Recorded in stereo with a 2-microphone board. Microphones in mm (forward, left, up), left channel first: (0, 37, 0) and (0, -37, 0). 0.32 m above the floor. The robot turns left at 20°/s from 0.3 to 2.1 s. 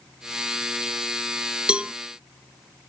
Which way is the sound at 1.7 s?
15° right (ahead or behind).